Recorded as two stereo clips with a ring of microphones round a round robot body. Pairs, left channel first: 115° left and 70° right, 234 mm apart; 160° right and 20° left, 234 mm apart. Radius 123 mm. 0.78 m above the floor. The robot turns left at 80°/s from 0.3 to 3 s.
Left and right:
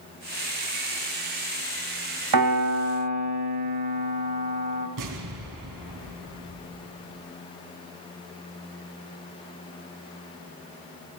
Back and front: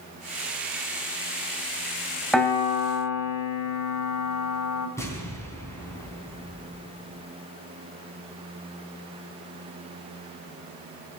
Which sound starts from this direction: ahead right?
A piano, at 2.3 s.